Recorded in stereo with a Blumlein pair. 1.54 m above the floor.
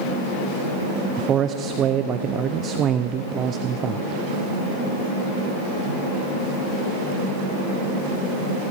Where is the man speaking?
30° right, 0.5 m.